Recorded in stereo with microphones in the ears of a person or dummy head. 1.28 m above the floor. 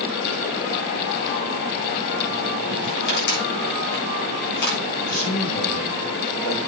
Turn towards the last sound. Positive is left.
turn(degrees=45)  # may be behind; listen again after turning